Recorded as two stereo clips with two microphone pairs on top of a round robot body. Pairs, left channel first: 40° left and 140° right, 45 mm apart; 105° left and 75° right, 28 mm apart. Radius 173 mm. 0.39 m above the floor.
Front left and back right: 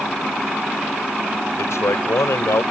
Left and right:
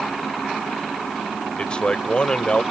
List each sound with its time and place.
1.6 s a man speaking: 50° left